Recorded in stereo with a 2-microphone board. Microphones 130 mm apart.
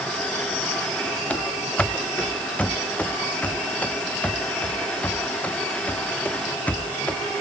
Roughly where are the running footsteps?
Centre.